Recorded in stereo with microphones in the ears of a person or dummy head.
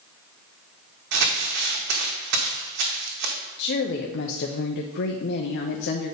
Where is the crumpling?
55° right (ahead or behind), 1.4 m.